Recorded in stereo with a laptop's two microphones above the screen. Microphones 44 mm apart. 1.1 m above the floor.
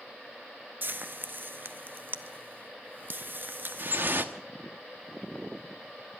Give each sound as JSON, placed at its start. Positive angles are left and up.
{"t": 0.8, "sound": "frying", "side_deg": -50, "distance_m": 0.7}
{"t": 3.8, "sound": "dripping", "side_deg": -55, "distance_m": 1.0}